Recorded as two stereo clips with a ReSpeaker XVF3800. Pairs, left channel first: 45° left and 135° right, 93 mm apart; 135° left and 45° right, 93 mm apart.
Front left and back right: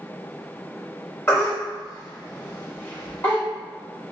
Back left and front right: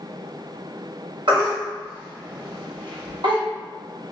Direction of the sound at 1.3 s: 15° right.